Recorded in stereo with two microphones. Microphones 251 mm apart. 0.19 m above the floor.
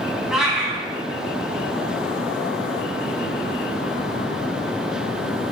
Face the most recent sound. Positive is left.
turn(degrees=0)  # may be behind; listen again after turning